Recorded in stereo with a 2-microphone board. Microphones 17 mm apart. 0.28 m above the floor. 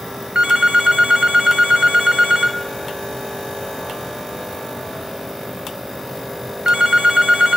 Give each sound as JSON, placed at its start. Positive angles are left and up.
{"t": 0.3, "sound": "a phone ringing", "side_deg": -70, "distance_m": 2.0}